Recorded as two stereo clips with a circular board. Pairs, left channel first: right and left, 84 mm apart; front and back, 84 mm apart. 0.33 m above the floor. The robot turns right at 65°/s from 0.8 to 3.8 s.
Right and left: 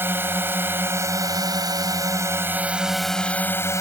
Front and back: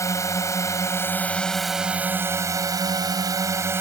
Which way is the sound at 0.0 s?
35° left.